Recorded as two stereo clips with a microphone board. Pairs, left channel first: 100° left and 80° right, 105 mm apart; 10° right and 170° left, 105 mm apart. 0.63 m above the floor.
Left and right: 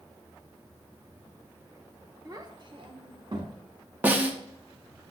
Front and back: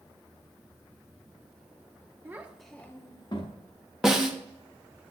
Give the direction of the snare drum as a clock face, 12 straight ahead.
4 o'clock.